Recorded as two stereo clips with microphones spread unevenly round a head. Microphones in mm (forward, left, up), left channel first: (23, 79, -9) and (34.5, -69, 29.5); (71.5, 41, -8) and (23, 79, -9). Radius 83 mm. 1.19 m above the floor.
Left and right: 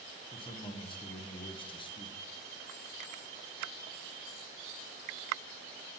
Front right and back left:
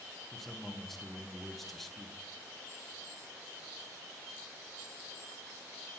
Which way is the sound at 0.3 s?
50° left.